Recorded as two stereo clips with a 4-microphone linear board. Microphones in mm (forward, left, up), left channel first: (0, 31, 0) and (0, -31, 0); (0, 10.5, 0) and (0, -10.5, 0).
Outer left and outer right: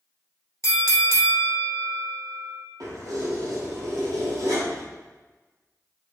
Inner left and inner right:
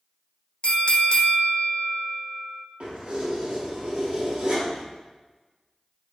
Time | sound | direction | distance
0.6 | a bell | 55° left (ahead or behind) | 0.5 m
2.8 | keys jangling | 65° right (ahead or behind) | 2.0 m